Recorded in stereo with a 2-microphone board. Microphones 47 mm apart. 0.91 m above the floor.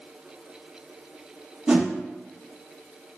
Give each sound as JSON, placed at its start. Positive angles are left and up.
{"t": 1.7, "sound": "a whoosh", "side_deg": -25, "distance_m": 0.5}